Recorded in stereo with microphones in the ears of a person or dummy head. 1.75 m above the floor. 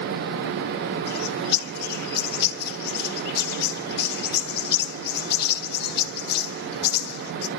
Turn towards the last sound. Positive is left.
turn(degrees=55)  # may be behind; listen again after turning